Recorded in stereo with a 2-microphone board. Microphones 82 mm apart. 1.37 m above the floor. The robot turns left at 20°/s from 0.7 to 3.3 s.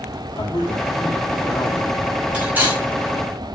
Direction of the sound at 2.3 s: 15° right (ahead or behind).